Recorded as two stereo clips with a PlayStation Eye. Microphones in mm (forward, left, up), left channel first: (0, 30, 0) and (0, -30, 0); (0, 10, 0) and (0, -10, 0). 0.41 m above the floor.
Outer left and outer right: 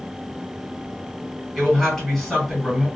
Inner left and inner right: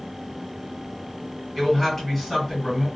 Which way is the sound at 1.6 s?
10° left (ahead or behind).